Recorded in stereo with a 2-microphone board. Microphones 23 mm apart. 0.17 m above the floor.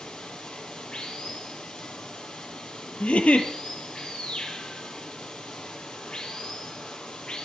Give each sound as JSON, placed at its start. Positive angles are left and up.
{"t": 0.0, "sound": "running water", "side_deg": 45, "distance_m": 3.5}
{"t": 3.0, "sound": "a giggle", "side_deg": 70, "distance_m": 2.0}